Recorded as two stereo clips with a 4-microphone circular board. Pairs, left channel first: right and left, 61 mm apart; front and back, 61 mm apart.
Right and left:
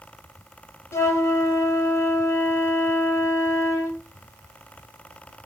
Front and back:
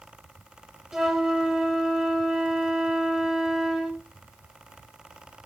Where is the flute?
100° right, 0.6 m.